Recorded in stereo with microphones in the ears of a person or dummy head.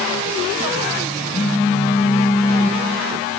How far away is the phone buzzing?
About 6.5 m.